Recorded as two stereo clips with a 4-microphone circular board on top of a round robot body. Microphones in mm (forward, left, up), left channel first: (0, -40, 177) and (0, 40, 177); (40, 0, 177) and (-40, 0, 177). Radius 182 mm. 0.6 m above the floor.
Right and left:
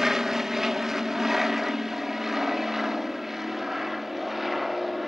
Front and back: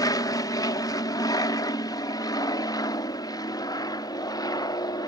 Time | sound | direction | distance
0.0 | an aircraft | 5° left | ?